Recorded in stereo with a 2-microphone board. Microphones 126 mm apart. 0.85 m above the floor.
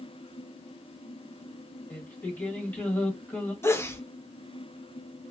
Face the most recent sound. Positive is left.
turn(degrees=20)  # may be behind; listen again after turning